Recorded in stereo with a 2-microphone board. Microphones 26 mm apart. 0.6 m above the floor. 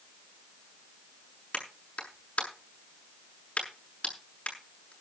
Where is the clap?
55° left (ahead or behind), 6.5 m.